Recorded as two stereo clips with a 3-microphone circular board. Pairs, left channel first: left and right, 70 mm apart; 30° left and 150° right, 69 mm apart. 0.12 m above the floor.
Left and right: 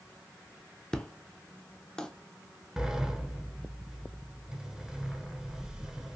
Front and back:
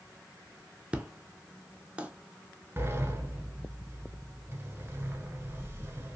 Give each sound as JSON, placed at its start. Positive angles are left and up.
{"t": 0.9, "sound": "an explosion", "azimuth_deg": 155, "distance_m": 0.5}
{"t": 2.8, "sound": "a sliding door", "azimuth_deg": -165, "distance_m": 0.7}